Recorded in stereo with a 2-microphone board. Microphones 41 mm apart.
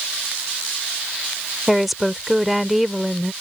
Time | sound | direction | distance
1.7 | a woman speaking | 5° right (ahead or behind) | ?